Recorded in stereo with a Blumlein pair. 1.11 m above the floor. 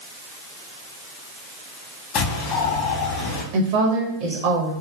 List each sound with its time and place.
2.1 s a bird: 40° left, 0.8 m
3.5 s a woman speaking: 45° right, 0.7 m